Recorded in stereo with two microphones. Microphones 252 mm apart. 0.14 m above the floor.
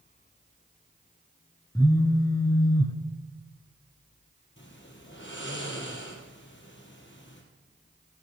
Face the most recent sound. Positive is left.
turn(degrees=50)  # may be behind; listen again after turning